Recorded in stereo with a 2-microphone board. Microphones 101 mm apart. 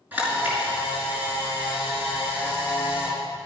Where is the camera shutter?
20° right (ahead or behind), 5 m.